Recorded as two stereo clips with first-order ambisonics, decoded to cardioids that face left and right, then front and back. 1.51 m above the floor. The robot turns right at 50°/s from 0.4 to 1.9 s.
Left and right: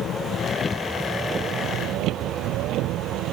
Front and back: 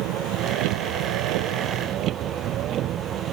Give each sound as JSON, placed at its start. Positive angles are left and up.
{"t": 0.0, "sound": "a vehicle", "azimuth_deg": 150}